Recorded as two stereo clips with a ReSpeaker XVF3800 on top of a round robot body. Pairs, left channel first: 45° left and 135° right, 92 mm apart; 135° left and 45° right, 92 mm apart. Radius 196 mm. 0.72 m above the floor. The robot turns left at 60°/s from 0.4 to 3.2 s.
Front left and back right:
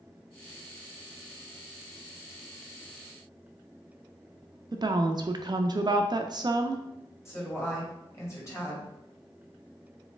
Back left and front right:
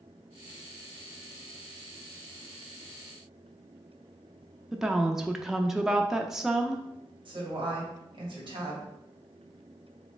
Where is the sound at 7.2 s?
15° right, 2 m.